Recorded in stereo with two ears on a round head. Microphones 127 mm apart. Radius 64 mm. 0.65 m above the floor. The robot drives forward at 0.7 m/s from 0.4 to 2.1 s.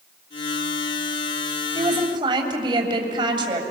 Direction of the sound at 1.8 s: 30° right (ahead or behind).